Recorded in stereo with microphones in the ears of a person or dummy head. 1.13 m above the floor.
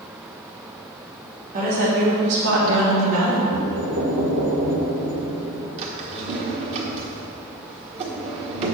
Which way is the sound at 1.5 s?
40° right (ahead or behind).